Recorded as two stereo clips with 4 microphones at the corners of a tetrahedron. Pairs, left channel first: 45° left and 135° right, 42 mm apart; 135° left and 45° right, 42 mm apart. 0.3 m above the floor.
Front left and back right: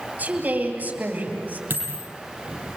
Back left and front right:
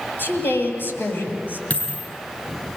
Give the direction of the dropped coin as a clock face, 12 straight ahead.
6 o'clock.